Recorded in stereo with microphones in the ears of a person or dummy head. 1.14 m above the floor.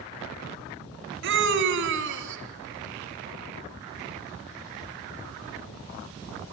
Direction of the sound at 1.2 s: 60° right (ahead or behind).